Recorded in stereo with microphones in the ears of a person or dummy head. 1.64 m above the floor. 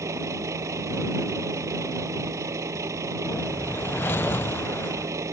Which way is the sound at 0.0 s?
20° right (ahead or behind).